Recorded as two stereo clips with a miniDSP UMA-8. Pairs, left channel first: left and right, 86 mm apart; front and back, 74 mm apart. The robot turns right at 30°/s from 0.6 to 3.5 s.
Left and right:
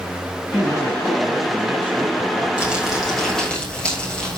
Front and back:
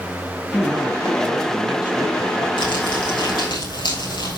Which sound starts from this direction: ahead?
Crumpling, at 2.6 s.